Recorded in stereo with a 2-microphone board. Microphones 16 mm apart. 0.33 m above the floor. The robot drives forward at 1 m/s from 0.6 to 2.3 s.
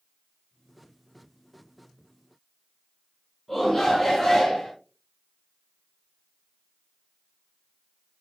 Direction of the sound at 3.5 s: 5° left (ahead or behind).